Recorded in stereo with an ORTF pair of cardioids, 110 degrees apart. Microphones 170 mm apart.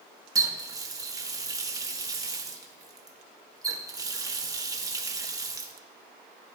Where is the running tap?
20° right, 1.4 m.